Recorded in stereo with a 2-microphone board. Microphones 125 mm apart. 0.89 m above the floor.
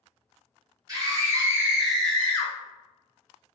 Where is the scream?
30° right (ahead or behind), 0.9 m; by 2.5 s 25° left (ahead or behind), 0.6 m.